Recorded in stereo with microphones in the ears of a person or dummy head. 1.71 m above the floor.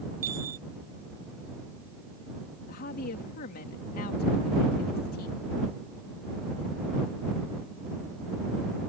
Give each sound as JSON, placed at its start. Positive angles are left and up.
{"t": 0.2, "sound": "a chime", "side_deg": -15}
{"t": 2.7, "sound": "a woman speaking", "side_deg": 55}